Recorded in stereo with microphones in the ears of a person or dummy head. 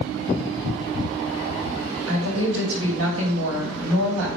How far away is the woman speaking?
About 2.5 m.